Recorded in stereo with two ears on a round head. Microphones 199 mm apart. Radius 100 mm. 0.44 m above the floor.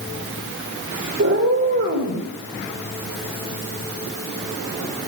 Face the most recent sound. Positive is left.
turn(degrees=-65)  # may be behind; listen again after turning